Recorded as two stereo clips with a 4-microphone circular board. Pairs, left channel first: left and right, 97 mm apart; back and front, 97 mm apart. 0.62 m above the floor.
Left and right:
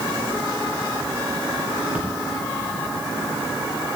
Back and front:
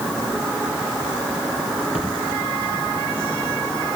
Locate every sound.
1.9 s a splash: 170° right, 7.5 m